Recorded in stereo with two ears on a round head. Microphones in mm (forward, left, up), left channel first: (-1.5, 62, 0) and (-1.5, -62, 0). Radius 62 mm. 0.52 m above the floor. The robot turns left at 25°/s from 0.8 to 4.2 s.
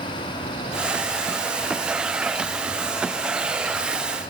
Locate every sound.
Only background noise.